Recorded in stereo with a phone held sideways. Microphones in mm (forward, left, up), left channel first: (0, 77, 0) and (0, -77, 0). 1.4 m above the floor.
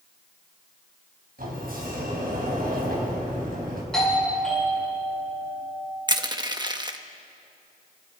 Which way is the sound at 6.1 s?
30° right (ahead or behind).